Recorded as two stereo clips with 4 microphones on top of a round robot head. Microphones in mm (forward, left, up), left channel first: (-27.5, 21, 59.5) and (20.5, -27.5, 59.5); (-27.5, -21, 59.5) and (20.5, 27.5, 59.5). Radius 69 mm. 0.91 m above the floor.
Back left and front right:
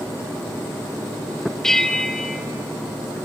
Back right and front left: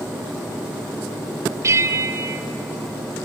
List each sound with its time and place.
1.6 s a bell: 55° left, 0.7 m